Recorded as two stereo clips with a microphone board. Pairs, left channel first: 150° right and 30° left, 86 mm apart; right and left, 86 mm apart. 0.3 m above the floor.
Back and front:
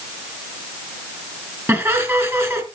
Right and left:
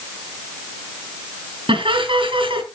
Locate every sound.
1.7 s laughter: 90° left, 4 m